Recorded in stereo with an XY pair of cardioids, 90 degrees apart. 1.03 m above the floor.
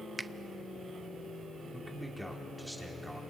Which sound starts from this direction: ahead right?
A finger snap, at 0.2 s.